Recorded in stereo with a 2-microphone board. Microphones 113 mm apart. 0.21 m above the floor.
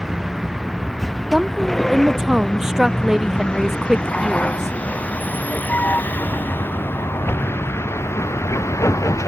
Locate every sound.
0.0 s a vehicle: 5° right (ahead or behind); by 9.3 s 25° left (ahead or behind)
1.3 s a woman speaking: 5° right (ahead or behind)